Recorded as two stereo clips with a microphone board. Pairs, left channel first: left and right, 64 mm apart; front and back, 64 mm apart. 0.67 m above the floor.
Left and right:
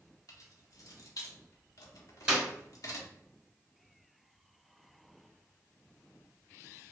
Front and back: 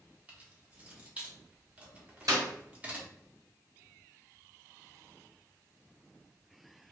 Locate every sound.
0.3 s keys jangling: 110° left, 0.8 m
2.3 s a clap: 165° right, 1.8 m